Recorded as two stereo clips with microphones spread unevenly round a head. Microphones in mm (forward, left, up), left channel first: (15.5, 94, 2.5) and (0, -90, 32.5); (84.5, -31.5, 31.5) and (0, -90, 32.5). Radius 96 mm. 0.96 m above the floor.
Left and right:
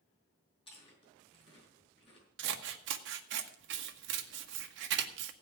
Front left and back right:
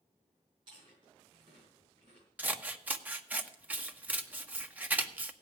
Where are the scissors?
75° right, 1.4 m.